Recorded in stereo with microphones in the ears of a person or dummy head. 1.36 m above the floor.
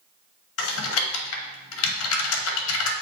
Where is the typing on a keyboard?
75° left (ahead or behind), 1.1 m.